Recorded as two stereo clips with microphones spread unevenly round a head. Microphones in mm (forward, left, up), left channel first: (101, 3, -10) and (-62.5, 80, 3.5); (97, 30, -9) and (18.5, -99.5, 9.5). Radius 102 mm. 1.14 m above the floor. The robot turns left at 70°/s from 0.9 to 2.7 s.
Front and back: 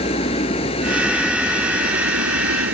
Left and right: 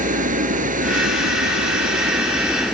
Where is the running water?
90° right; by 2.7 s 145° left.